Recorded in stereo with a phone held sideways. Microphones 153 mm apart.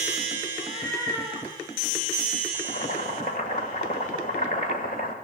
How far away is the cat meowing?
About 8 m.